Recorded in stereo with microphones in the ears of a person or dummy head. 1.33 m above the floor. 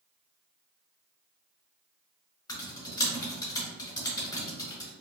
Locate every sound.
2.5 s typing on a keyboard: 25° left (ahead or behind), 1.3 m